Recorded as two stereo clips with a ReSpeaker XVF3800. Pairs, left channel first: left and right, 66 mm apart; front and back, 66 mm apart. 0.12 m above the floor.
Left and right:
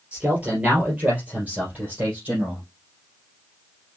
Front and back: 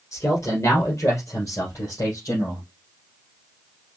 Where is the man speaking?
25° right, 3 m.